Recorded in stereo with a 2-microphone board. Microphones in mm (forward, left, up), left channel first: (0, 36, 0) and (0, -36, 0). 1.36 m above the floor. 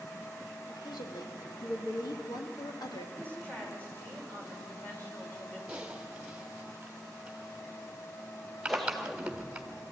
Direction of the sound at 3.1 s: 25° left (ahead or behind).